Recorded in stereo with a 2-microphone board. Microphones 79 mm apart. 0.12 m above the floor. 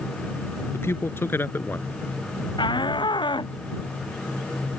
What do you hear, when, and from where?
0.7 s a man speaking: 35° left (ahead or behind); by 1.9 s 25° left (ahead or behind)
2.6 s a shout: 80° left